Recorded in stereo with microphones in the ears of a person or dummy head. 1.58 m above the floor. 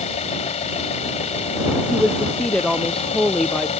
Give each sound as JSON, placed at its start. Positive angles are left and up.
{"t": 0.0, "sound": "an engine running", "side_deg": 40}
{"t": 1.9, "sound": "a woman speaking", "side_deg": 10}